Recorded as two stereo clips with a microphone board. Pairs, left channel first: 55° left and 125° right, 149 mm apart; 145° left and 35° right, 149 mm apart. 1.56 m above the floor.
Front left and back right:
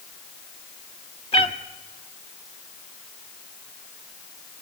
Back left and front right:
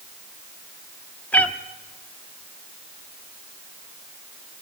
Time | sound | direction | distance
1.3 | a cat meowing | 75° left | 1.2 m